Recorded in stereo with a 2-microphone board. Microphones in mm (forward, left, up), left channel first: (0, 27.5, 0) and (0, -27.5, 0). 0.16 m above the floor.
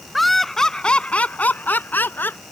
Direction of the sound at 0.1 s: Centre (ahead or behind).